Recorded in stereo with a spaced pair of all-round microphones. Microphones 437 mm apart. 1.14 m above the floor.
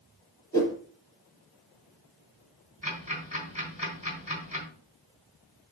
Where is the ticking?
30° left (ahead or behind), 3.5 m.